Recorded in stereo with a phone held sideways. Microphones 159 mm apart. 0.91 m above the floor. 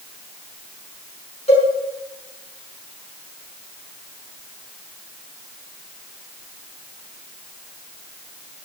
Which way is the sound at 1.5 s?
40° left (ahead or behind).